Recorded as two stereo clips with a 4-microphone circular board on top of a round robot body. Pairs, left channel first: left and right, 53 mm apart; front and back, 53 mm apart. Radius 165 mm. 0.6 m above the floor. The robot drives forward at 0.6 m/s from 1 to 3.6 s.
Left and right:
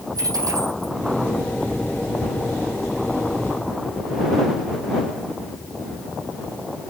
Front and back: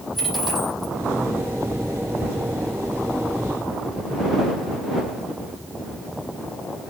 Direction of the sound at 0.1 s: 90° right.